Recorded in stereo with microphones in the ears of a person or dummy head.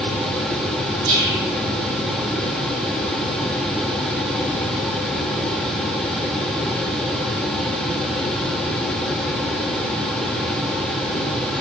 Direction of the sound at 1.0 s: 60° right (ahead or behind).